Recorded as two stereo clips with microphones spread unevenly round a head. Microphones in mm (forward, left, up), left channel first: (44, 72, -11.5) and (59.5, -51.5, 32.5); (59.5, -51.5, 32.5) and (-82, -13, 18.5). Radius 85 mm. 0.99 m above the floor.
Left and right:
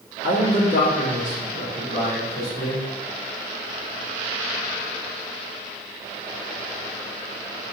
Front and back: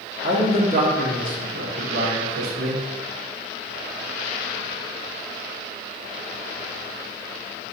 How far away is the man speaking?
About 1.8 m.